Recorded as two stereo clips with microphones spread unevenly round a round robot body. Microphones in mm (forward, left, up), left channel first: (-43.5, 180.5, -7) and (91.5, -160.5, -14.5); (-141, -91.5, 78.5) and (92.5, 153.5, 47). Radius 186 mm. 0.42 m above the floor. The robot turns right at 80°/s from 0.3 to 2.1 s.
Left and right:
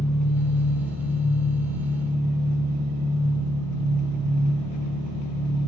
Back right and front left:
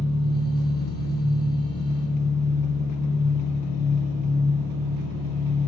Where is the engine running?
175° right, 2 m; by 5.7 s 30° right, 2 m.